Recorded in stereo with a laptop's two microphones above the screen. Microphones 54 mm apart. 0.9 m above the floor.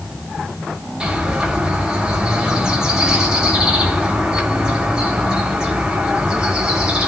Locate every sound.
1.0 s a bird: 15° right (ahead or behind), 5.5 m